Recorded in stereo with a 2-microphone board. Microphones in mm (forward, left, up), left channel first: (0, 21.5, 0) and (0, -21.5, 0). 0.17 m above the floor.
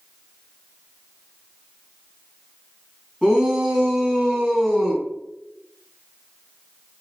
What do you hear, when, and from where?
3.2 s a shout: 15° right (ahead or behind), 1.7 m